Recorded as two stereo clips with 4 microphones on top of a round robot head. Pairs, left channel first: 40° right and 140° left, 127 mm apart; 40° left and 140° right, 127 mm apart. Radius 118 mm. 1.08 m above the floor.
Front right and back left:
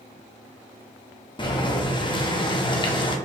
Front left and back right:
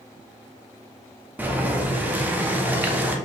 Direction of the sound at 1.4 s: 70° right.